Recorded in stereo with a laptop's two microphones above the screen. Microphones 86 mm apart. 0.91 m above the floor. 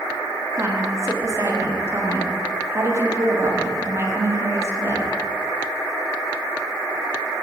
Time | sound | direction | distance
0.6 | a woman speaking | 35° right (ahead or behind) | 1.6 m